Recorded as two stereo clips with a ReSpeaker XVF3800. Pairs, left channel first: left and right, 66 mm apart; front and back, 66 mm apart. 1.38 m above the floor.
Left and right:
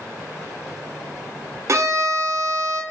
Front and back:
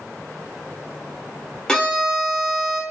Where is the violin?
75° right, 0.6 m.